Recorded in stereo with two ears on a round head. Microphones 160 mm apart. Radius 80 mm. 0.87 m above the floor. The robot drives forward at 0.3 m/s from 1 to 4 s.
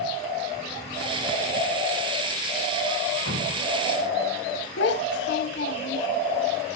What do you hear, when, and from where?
3.2 s dripping: 70° right (ahead or behind), 7 m; by 3.7 s 75° right (ahead or behind), 7 m
4.8 s a child speaking: 70° left (ahead or behind), 1.2 m